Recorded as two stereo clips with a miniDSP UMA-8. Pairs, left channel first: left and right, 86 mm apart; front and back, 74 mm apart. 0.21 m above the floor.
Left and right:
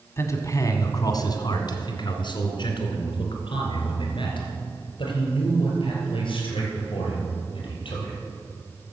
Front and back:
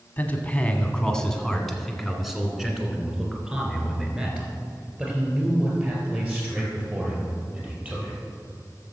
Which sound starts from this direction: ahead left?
A man speaking, at 0.2 s.